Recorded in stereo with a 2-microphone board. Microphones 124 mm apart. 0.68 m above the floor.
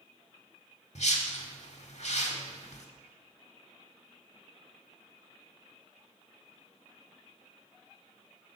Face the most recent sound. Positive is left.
turn(degrees=65)  # may be behind; listen again after turning